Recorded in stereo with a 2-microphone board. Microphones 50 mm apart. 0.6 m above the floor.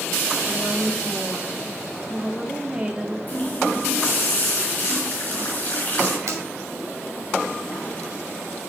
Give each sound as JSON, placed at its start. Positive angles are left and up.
{"t": 0.5, "sound": "a woman speaking", "side_deg": -20, "distance_m": 1.5}
{"t": 3.3, "sound": "a running tap", "side_deg": 35, "distance_m": 4.0}
{"t": 6.3, "sound": "a finger snap", "side_deg": -80, "distance_m": 2.0}